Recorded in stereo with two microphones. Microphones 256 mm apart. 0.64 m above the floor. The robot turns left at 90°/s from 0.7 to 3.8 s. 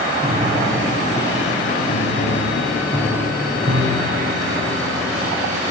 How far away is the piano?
About 5 m.